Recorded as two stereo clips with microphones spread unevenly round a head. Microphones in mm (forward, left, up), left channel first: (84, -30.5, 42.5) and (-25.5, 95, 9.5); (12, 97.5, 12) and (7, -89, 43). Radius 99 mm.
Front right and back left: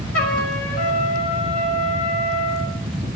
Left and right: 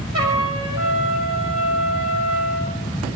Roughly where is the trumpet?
Ahead right.